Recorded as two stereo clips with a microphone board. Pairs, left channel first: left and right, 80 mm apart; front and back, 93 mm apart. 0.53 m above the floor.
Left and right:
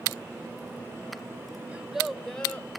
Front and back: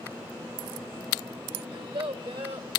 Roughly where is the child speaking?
Behind.